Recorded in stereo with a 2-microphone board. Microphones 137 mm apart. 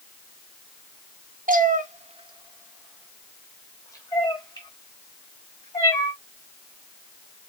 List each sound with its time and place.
1.5 s a cat meowing: 70° right (ahead or behind), 0.9 m; by 6.1 s 40° left (ahead or behind), 3 m